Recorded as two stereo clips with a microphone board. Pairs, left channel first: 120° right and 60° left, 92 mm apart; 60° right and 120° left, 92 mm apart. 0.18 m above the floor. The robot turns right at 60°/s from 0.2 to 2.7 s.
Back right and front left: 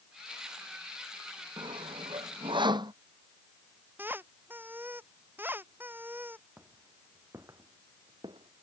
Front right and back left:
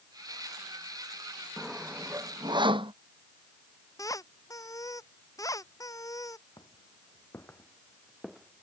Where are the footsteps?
15° right; by 8.6 s 45° left.